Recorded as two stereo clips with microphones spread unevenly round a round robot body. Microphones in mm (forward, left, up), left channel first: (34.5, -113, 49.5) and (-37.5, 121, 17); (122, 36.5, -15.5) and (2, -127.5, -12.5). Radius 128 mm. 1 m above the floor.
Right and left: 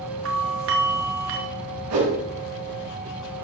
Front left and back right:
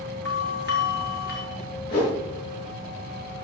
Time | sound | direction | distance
0.2 | a doorbell | 100° left | 2.5 m
1.9 | a whoosh | 125° left | 5.5 m